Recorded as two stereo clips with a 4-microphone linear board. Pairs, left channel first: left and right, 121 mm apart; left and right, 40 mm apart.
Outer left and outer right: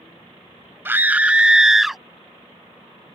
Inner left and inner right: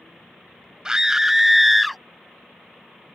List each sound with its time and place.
0.8 s a scream: 20° right (ahead or behind); by 2.0 s centre (ahead or behind)